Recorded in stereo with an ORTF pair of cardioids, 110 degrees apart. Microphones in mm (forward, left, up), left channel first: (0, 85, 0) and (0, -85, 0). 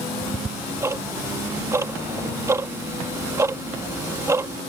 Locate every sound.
0.2 s ticking: 15° right